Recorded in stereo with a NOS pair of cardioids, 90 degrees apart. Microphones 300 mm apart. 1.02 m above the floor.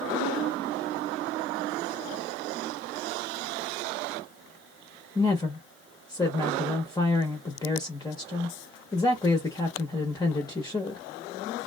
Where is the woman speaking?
15° left, 0.8 m.